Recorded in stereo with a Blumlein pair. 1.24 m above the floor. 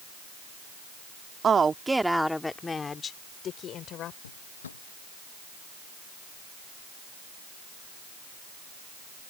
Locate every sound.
1.4 s a woman speaking: 20° right; by 4.1 s 35° left
4.2 s a drawer: 70° left